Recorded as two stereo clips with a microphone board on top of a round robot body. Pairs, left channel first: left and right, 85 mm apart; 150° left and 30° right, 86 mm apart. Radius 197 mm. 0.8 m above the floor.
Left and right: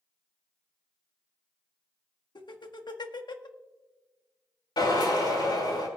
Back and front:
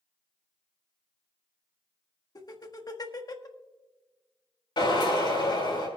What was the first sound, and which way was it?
Laughter, 115° left.